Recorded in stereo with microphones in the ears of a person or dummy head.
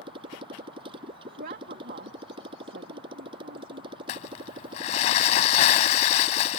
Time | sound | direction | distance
0.0 | a motorcycle | 25° right (ahead or behind) | ?
1.4 | a woman speaking | 45° right (ahead or behind) | ?
4.1 | crumpling | 35° left (ahead or behind) | ?